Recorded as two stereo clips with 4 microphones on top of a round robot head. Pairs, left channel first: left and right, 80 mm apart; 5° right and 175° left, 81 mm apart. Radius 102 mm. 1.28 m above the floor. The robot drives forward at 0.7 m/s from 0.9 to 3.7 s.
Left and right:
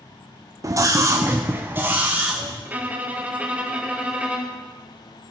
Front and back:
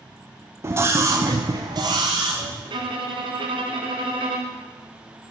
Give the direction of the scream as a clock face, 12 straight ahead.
4 o'clock.